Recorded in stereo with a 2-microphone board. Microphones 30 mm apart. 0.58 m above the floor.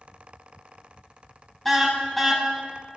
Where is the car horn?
Centre (ahead or behind), 2.5 m.